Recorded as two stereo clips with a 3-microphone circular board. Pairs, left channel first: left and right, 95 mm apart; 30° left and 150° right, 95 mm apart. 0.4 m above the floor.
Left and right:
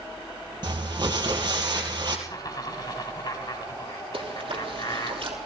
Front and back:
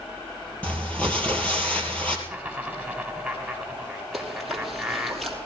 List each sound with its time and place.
0.6 s crumpling: 45° right, 3 m
2.3 s laughter: 120° left, 1.8 m
4.1 s chewing: 60° right, 3 m